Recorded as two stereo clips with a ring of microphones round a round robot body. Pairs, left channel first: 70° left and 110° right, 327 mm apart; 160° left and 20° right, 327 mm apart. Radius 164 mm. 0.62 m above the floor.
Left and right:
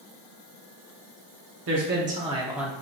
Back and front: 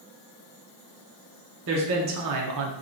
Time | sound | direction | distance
1.7 | a man speaking | 70° right | 0.8 m